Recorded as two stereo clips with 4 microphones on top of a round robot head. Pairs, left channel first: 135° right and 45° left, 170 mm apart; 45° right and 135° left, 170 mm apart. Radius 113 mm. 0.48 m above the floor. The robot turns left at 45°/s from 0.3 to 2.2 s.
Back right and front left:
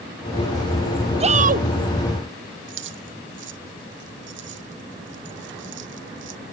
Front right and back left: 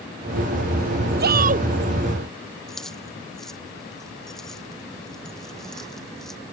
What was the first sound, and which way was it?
A shout, 100° left.